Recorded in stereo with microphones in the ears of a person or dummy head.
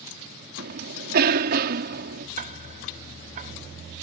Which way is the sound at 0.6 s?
55° right (ahead or behind).